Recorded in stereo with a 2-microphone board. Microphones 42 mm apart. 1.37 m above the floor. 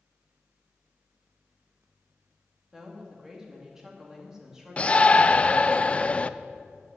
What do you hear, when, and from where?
2.7 s a woman speaking: 10° right (ahead or behind), 2.5 m
4.8 s a shout: 30° left (ahead or behind), 0.6 m